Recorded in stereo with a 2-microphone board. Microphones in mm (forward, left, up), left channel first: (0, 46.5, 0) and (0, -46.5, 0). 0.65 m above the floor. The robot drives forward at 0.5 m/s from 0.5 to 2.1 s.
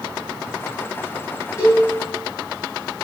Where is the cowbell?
30° left (ahead or behind), 8 m.